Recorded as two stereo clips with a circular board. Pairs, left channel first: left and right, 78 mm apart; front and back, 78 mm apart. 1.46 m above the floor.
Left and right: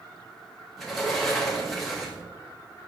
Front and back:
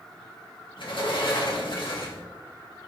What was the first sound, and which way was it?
A sliding door, 5° left.